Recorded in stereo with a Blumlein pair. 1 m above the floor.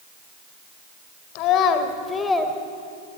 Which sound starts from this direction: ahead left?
A child speaking, at 1.4 s.